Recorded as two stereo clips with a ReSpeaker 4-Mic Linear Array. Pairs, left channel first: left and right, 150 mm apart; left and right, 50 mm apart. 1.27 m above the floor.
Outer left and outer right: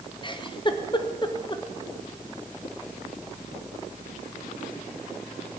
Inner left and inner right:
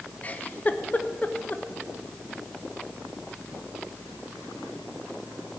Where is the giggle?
30° left (ahead or behind), 0.7 m.